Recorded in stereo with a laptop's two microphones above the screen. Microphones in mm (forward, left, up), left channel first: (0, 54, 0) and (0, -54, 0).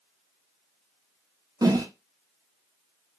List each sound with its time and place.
1.6 s a whoosh: 35° right (ahead or behind), 0.7 m